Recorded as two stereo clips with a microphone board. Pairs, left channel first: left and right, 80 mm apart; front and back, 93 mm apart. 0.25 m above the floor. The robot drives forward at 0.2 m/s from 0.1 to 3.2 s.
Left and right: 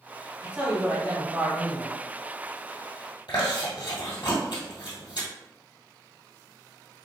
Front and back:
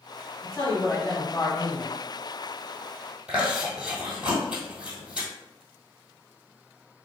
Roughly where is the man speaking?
Ahead right.